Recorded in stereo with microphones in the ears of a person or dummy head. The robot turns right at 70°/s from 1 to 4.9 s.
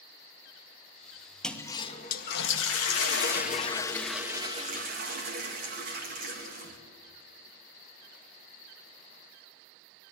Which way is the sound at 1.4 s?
Straight ahead.